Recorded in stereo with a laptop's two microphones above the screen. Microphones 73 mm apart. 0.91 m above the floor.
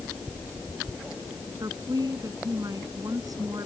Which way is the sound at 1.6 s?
55° right (ahead or behind).